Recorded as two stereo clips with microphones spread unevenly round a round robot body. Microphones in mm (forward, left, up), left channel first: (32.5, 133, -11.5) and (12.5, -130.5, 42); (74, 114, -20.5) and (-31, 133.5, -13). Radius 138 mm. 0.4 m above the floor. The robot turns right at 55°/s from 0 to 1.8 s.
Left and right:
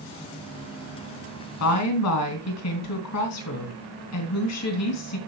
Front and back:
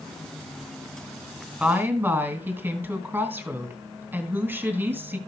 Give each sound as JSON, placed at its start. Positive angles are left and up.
{"t": 1.6, "sound": "a woman speaking", "azimuth_deg": 85, "distance_m": 3.0}